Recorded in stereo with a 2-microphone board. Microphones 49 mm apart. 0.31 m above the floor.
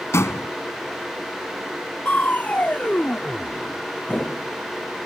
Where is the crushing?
30° left (ahead or behind).